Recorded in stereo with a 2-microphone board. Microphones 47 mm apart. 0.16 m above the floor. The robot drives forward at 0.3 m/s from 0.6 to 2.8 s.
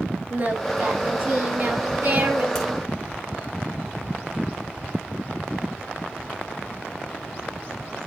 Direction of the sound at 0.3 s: 40° right (ahead or behind).